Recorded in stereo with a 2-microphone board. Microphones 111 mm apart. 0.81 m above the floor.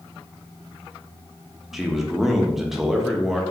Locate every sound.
1.7 s a man speaking: 5° right (ahead or behind), 0.7 m